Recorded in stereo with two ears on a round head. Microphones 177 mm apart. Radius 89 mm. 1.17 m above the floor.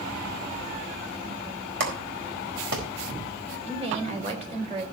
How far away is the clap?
About 4 m.